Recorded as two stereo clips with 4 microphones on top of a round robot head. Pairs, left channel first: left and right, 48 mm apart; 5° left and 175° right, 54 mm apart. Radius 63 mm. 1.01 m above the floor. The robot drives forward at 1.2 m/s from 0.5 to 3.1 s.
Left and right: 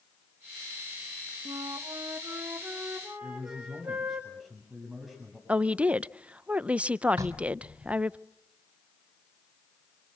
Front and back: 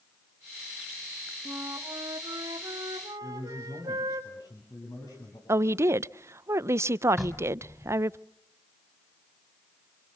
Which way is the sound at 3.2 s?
5° right.